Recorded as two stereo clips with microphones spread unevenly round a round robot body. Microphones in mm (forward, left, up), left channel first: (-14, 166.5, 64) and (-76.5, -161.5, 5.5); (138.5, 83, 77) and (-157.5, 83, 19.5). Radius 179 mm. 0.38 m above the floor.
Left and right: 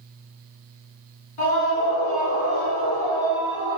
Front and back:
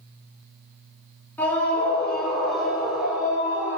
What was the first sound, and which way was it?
A scream, 85° left.